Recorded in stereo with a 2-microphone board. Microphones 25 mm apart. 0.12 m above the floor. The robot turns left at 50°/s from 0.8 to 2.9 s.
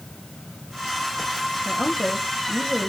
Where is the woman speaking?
120° left, 5.5 m; by 2.9 s 60° left, 5.5 m.